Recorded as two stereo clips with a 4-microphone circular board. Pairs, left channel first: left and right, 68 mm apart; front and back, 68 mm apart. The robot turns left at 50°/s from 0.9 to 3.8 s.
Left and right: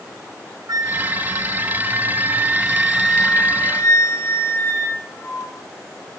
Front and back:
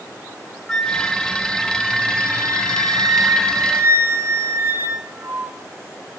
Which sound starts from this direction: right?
A flute, at 0.7 s.